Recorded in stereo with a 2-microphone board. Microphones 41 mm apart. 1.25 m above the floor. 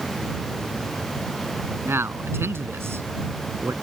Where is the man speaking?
70° right (ahead or behind).